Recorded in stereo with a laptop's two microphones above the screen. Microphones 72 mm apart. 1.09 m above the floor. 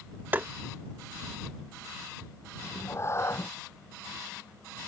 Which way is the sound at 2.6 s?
40° left (ahead or behind).